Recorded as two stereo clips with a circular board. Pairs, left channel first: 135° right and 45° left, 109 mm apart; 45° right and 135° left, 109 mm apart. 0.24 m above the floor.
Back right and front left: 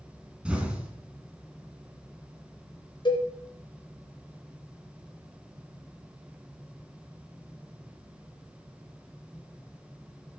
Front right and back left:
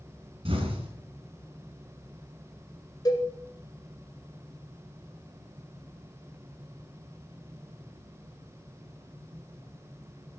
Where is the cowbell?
95° right, 2 m.